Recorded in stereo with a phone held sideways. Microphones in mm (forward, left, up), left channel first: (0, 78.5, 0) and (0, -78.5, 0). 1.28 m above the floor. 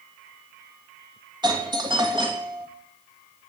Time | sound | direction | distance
1.4 | a doorbell | 30° right (ahead or behind) | 2.5 m